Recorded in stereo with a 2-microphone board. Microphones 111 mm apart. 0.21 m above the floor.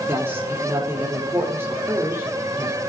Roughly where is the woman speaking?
Right.